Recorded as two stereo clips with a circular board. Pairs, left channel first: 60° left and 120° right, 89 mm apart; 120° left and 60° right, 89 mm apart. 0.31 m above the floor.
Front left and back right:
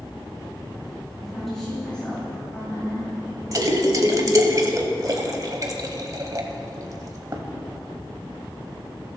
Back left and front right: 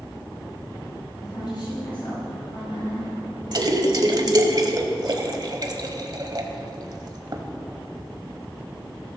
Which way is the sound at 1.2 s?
155° left.